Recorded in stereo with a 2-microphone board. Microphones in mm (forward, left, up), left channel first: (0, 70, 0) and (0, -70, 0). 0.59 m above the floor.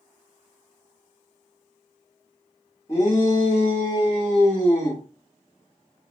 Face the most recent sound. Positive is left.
turn(degrees=30)  # may be behind; listen again after turning